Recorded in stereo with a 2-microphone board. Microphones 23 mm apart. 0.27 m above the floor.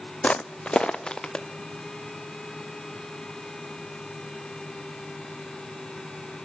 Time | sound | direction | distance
0.2 | footsteps | 55° left (ahead or behind) | 0.5 m